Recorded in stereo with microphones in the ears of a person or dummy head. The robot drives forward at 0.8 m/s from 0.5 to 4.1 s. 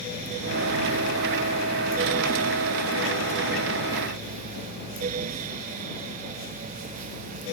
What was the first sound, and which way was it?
Only background noise.